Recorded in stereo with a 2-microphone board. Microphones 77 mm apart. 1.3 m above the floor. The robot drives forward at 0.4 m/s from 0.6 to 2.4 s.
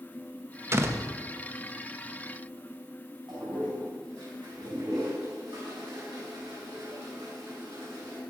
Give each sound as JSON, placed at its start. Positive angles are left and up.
{"t": 0.7, "sound": "a door slam", "side_deg": -35, "distance_m": 0.6}
{"t": 3.3, "sound": "a toilet flushing", "side_deg": -70, "distance_m": 4.5}